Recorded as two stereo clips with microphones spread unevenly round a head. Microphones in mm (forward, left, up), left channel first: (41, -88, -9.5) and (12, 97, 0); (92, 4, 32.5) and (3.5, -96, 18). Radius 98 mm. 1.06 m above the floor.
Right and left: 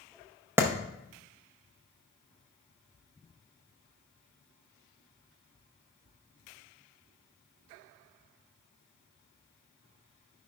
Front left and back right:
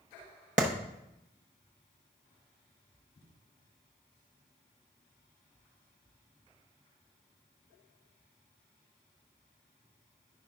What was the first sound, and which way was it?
A clap, straight behind.